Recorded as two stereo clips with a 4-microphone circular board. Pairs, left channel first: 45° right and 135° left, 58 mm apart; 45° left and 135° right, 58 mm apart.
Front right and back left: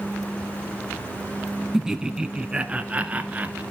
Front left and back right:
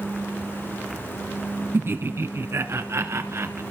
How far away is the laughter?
About 1.2 m.